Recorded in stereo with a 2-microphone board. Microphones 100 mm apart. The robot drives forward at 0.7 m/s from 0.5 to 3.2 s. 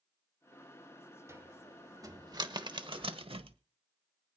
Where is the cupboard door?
30° right (ahead or behind), 1.9 m; by 3.6 s 65° right (ahead or behind), 1.0 m.